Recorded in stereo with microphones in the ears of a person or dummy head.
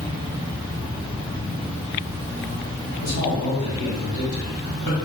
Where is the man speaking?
55° left (ahead or behind), 1.0 m.